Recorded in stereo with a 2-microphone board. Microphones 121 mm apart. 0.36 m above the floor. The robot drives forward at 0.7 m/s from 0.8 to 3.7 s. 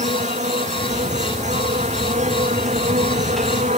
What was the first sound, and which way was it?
An insect, 85° right.